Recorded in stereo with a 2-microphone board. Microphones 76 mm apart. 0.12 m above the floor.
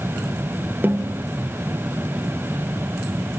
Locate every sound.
0.8 s a snare drum: 25° right (ahead or behind), 0.7 m